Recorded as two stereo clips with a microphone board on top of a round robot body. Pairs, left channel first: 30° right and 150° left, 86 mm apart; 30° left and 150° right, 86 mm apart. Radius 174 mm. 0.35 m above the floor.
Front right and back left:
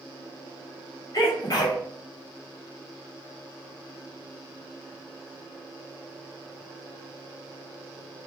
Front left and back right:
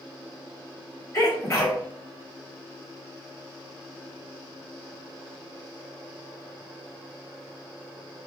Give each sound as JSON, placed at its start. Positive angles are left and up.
{"t": 1.1, "sound": "a sneeze", "azimuth_deg": -10, "distance_m": 1.7}